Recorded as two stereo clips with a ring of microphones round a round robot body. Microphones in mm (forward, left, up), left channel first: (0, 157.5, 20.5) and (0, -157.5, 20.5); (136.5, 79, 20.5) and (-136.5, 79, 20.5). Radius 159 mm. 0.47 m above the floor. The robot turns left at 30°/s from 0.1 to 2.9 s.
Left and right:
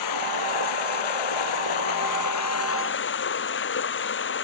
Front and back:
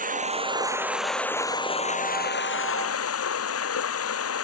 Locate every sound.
0.0 s running water: 120° left; by 4.4 s 35° left